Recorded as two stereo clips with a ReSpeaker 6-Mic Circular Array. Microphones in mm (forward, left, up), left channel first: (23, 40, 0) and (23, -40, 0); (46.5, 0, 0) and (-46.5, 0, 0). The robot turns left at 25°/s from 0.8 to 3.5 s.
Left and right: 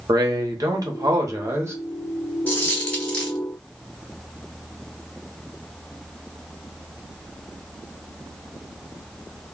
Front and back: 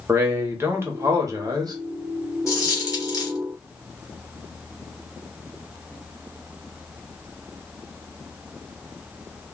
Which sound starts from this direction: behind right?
A man speaking, at 0.1 s.